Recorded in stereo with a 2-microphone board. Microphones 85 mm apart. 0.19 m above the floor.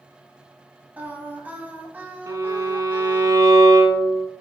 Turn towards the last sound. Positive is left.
turn(degrees=-45)  # may be behind; listen again after turning